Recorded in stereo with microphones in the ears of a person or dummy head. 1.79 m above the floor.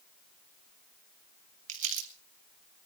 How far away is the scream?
I don't hear a scream.